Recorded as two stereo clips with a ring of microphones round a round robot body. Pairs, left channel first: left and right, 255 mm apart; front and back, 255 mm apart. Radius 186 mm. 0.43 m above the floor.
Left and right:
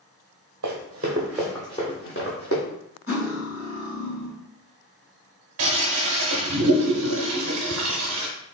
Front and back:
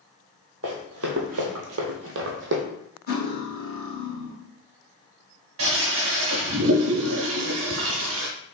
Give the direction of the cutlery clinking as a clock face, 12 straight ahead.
10 o'clock.